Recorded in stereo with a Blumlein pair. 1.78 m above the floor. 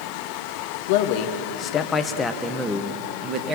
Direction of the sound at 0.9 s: 50° left.